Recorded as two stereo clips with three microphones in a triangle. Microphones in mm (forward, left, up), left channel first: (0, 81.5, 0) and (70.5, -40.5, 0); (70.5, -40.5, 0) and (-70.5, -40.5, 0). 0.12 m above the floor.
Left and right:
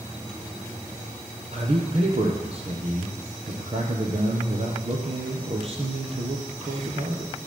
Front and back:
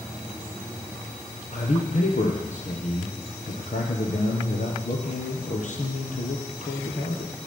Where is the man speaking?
20° right, 3 m.